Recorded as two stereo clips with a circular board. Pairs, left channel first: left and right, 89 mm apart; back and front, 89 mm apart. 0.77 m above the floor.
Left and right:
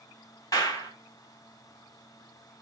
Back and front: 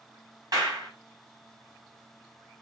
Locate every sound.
0.5 s a clap: 45° left, 4.5 m